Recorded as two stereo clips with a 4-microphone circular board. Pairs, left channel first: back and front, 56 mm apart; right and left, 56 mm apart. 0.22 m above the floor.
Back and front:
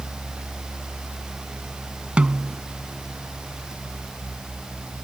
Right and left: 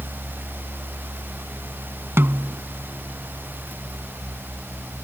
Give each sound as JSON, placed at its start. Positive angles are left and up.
{"t": 2.2, "sound": "a snare drum", "azimuth_deg": 65}